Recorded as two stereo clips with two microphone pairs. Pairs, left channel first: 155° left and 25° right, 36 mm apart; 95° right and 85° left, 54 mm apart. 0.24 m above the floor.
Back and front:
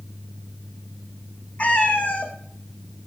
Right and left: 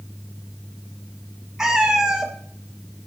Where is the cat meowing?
160° left, 0.7 m.